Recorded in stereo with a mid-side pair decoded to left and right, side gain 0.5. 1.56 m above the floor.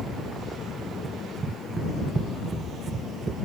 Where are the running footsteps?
40° right.